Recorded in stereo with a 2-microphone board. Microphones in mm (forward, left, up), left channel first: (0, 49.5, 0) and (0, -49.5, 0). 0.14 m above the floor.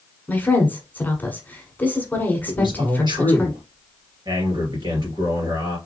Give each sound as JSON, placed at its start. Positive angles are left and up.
{"t": 0.3, "sound": "a woman speaking", "side_deg": 20, "distance_m": 1.2}
{"t": 2.5, "sound": "a man speaking", "side_deg": -45, "distance_m": 2.5}